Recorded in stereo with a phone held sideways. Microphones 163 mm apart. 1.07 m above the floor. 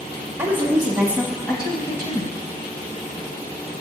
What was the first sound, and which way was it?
A woman speaking, 15° right (ahead or behind).